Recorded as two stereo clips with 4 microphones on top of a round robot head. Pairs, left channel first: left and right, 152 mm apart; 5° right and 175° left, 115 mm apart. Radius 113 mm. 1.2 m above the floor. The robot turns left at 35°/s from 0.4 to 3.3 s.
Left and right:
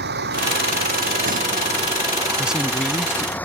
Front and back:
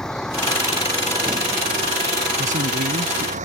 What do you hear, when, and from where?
0.0 s a vehicle: 90° right; by 3.5 s 170° left
2.4 s a man speaking: 170° right; by 3.4 s 155° left